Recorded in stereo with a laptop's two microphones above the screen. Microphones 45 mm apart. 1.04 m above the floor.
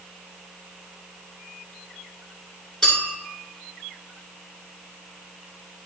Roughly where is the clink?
Centre.